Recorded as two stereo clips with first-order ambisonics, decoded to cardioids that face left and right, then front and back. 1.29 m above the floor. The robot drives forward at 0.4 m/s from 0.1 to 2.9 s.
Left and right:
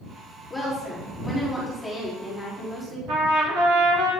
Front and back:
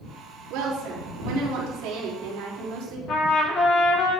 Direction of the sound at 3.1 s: 55° right.